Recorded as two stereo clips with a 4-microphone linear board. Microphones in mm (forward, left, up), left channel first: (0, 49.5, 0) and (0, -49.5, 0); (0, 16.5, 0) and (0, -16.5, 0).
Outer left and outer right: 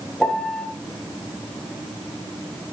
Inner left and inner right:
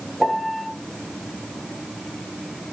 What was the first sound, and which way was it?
A piano, 10° left (ahead or behind).